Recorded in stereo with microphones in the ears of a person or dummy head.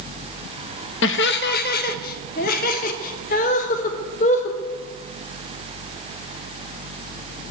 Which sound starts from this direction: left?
Laughter, at 1.0 s.